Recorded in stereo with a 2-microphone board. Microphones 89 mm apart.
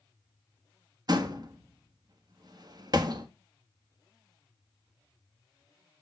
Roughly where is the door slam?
Right.